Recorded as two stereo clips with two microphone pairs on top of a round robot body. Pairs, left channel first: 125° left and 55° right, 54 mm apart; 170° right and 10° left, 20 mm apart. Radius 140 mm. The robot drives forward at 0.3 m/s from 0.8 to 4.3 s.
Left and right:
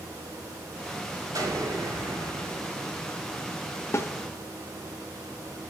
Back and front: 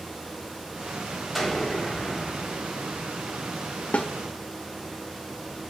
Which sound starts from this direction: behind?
A snare drum, at 3.9 s.